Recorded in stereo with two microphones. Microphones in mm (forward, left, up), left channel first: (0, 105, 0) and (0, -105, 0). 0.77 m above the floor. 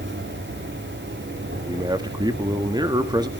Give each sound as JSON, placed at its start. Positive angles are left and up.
{"t": 0.0, "sound": "an insect", "side_deg": -65, "distance_m": 5.0}
{"t": 1.7, "sound": "a man speaking", "side_deg": -20, "distance_m": 1.3}